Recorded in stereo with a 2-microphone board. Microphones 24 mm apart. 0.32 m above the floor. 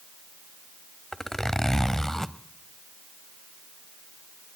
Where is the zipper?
15° left (ahead or behind), 0.9 m.